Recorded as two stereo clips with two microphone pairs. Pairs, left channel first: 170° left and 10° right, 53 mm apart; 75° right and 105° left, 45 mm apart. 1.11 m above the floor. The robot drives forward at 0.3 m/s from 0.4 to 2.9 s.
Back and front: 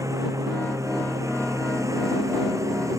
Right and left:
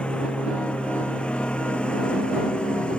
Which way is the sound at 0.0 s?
10° right.